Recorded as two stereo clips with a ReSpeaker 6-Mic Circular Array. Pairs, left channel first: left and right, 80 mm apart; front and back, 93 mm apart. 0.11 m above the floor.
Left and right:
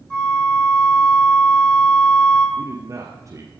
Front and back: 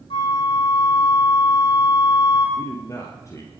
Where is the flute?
10° left, 5 m.